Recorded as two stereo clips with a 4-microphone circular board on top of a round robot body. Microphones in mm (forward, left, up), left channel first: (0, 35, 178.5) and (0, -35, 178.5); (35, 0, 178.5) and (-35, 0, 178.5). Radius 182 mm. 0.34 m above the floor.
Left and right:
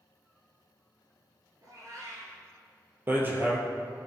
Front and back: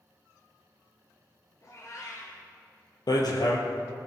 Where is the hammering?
25° right, 2.5 m.